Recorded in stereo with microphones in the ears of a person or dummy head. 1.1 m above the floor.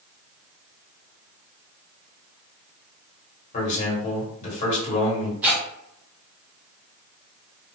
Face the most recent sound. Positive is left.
turn(degrees=-5)  # may be behind; listen again after turning